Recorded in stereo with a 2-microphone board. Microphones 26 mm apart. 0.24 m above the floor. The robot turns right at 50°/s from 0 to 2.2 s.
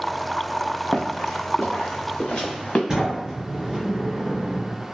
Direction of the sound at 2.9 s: 20° right (ahead or behind).